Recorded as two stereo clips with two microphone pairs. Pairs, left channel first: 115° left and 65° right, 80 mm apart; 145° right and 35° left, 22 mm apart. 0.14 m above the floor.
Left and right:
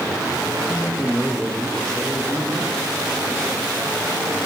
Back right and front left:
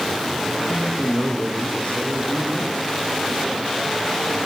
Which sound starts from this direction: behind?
A man speaking, at 0.7 s.